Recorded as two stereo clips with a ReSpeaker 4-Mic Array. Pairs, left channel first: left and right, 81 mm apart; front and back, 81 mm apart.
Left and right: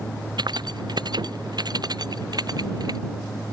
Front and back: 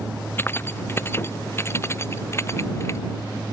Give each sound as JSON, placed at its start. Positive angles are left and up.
{"t": 0.4, "sound": "keys jangling", "azimuth_deg": -60}